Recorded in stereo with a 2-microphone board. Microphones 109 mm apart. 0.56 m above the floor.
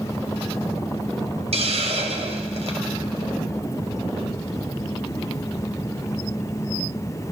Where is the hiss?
70° right (ahead or behind), 2.5 m.